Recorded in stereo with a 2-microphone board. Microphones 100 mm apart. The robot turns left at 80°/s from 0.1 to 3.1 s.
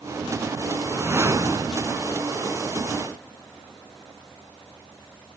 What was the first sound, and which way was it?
A whoosh, 25° right.